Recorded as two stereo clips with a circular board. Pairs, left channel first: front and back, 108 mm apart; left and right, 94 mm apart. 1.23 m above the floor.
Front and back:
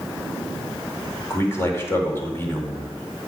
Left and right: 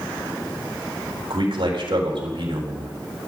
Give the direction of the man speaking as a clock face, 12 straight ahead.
2 o'clock.